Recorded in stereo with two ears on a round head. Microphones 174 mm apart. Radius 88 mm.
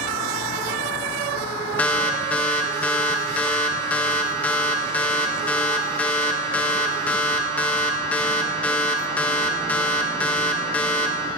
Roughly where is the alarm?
Centre.